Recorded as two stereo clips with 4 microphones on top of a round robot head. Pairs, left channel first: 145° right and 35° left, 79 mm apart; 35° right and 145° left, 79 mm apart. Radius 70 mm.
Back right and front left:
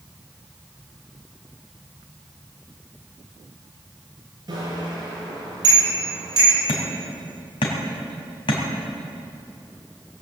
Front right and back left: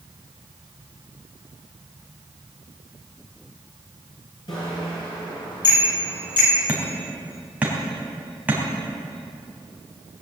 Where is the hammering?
140° right, 3 m.